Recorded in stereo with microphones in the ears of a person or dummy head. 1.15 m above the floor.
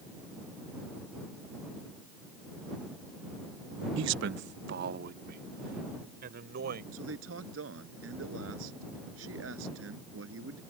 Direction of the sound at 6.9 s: 80° right.